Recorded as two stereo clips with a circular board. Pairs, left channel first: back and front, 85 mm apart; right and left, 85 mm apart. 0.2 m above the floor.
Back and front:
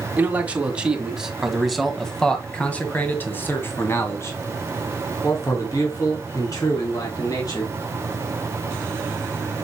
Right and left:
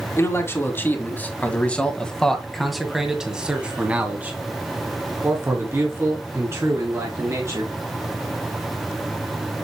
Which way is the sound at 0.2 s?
60° right.